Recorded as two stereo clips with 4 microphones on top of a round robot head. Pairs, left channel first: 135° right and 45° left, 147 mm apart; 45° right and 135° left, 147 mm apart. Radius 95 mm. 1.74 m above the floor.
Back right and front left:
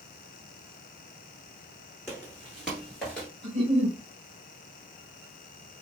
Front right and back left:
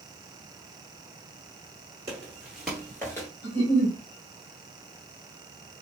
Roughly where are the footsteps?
Left.